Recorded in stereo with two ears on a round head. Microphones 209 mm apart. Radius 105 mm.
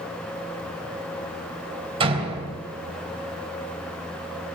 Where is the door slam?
25° right (ahead or behind), 3.5 m.